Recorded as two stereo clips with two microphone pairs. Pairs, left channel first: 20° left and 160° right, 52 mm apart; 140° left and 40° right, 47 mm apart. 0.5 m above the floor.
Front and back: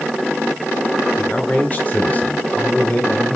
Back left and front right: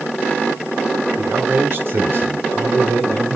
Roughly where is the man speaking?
Ahead.